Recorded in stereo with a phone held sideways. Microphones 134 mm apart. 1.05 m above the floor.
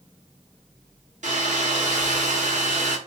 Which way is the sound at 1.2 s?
65° right (ahead or behind).